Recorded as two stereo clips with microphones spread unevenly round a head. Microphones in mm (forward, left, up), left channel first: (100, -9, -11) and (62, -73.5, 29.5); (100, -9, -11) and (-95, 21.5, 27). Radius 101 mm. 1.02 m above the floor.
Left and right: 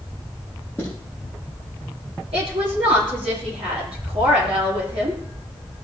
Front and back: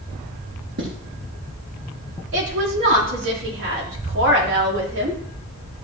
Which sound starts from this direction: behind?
A woman speaking, at 2.3 s.